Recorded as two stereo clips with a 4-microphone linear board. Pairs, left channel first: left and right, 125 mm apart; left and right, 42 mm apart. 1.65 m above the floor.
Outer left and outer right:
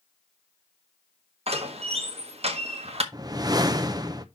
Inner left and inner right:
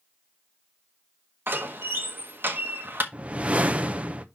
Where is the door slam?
55° right (ahead or behind), 1.4 m.